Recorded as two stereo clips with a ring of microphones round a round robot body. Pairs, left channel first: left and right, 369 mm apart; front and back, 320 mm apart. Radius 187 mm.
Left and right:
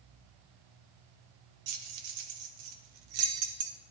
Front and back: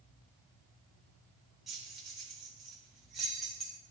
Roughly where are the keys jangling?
Right.